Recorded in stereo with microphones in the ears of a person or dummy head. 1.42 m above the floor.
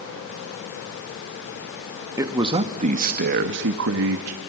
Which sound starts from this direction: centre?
A man speaking, at 2.2 s.